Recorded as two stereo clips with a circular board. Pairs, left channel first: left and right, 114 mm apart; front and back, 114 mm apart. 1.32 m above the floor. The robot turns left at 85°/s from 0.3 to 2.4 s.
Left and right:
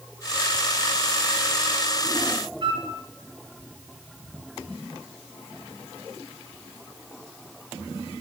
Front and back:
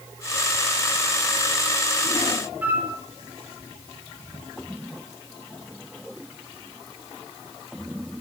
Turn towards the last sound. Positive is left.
turn(degrees=-110)